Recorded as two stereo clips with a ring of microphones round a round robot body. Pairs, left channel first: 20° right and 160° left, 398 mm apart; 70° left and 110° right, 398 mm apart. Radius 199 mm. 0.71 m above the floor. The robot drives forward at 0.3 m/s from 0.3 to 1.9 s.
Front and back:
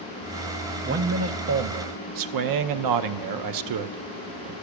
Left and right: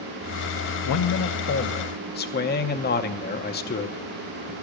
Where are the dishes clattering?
No dishes clattering in this recording.